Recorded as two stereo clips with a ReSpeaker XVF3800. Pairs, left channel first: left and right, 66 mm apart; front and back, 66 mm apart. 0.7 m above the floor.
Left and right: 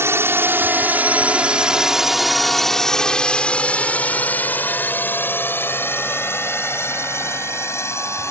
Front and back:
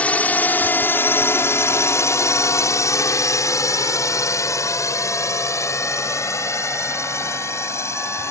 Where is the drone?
60° right; by 8.3 s 45° left.